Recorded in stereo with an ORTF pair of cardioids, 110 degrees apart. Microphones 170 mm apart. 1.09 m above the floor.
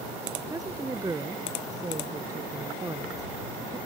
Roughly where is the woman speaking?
Ahead.